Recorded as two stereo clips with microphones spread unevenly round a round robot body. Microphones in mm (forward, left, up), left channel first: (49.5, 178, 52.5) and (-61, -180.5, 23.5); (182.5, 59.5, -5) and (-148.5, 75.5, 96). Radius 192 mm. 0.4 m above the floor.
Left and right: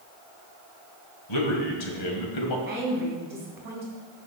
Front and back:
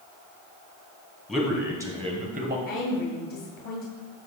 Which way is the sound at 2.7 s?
30° right.